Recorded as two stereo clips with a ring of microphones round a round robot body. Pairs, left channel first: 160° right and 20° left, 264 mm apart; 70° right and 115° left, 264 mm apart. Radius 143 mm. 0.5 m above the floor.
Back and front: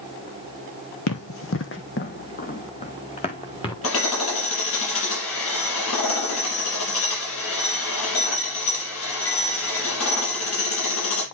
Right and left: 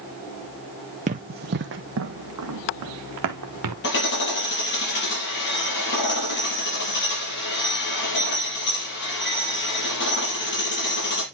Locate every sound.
1.1 s running footsteps: 175° left, 1.1 m; by 3.7 s 130° left, 2 m
3.8 s hammering: 120° right, 5.5 m